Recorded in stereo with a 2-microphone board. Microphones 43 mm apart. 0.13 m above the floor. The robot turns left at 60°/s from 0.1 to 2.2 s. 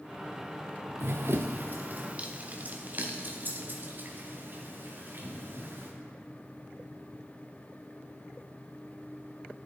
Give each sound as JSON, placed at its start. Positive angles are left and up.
{"t": 1.0, "sound": "running footsteps", "side_deg": -65, "distance_m": 0.7}